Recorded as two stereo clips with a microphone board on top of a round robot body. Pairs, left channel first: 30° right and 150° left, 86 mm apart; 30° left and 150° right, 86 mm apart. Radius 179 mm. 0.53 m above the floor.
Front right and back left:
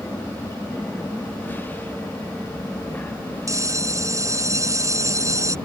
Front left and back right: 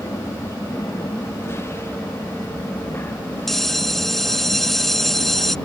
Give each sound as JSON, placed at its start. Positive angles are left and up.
{"t": 0.0, "sound": "an aircraft", "azimuth_deg": 15}
{"t": 3.5, "sound": "a bell", "azimuth_deg": 115}